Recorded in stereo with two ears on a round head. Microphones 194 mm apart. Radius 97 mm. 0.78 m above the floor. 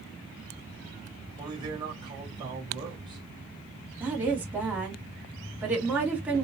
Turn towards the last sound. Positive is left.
turn(degrees=-10)  # may be behind; listen again after turning